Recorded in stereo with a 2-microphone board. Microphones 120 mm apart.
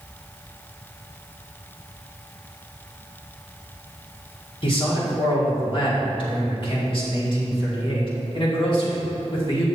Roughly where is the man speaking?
Left.